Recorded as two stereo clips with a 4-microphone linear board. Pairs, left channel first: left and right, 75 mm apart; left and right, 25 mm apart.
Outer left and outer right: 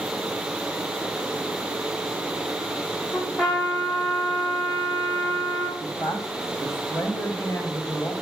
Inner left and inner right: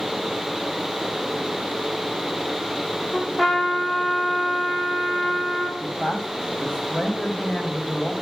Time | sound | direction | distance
3.1 | a trumpet | 5° left (ahead or behind) | 7 m
5.8 | a man speaking | 40° left (ahead or behind) | 2 m